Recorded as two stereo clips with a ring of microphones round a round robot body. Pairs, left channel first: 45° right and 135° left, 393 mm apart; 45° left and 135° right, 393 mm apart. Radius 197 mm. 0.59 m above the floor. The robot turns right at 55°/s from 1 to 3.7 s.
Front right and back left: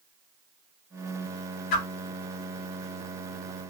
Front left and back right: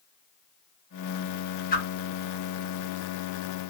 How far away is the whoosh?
About 1.1 m.